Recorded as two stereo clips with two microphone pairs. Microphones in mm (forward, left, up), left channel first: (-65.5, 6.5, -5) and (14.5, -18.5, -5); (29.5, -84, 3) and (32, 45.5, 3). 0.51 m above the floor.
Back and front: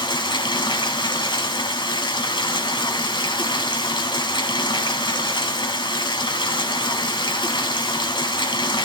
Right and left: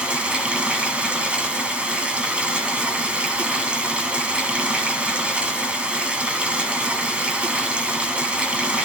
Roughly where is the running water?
Behind.